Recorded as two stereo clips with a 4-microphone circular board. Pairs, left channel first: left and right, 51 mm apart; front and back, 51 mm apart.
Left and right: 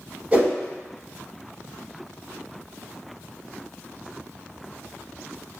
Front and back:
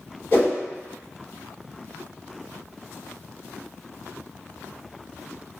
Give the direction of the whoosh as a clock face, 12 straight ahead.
1 o'clock.